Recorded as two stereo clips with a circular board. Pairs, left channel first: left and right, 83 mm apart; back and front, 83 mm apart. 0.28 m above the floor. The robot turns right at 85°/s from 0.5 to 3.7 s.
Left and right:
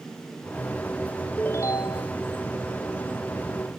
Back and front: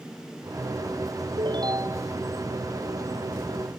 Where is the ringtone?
15° left; by 2.1 s 80° left.